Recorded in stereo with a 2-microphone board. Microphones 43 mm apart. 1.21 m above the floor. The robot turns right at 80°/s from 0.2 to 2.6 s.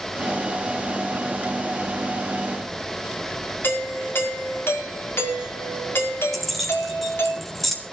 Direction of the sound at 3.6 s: 65° left (ahead or behind).